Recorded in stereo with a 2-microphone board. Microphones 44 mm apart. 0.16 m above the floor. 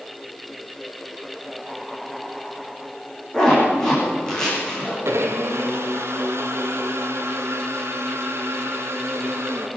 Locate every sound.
3.3 s a zipper: 15° left (ahead or behind), 9.5 m
5.0 s a blender: 70° right (ahead or behind), 2 m